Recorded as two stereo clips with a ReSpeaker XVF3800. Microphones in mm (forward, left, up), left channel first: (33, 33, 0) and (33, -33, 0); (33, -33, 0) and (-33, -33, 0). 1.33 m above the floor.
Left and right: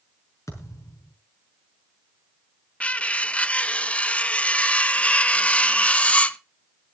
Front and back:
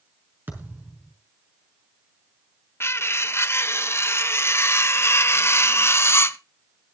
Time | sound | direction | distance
0.5 | a thud | 125° left | 5.5 m
2.8 | cutlery clinking | 25° left | 0.6 m